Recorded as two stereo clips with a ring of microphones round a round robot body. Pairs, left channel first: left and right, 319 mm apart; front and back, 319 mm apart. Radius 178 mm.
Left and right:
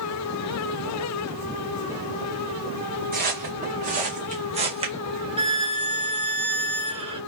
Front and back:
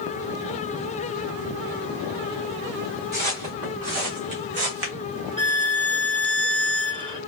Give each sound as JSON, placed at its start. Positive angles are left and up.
{"t": 3.1, "sound": "footsteps", "azimuth_deg": -155, "distance_m": 2.0}
{"t": 5.4, "sound": "a violin", "azimuth_deg": -130, "distance_m": 1.0}